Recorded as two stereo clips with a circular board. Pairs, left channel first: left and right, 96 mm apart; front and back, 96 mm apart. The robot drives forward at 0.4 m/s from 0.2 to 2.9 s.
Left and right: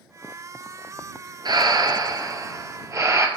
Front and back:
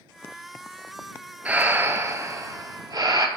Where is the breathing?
110° right, 0.8 m; by 3.3 s 140° right, 1.1 m.